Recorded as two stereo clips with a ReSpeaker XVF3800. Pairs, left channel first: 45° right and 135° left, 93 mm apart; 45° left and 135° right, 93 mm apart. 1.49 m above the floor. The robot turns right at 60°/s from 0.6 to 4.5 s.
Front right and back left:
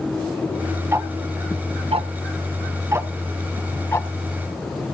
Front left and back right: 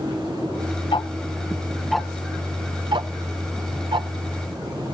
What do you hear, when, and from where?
0.9 s ticking: 75° left, 0.7 m; by 4.1 s 95° right, 0.7 m